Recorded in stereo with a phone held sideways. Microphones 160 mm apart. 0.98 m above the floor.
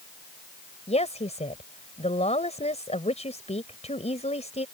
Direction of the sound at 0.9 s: 45° left (ahead or behind).